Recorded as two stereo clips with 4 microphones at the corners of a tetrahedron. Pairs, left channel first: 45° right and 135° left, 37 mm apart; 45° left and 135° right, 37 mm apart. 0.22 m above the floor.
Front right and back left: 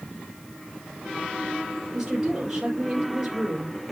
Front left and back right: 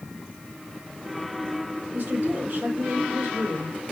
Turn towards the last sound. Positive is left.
turn(degrees=-145)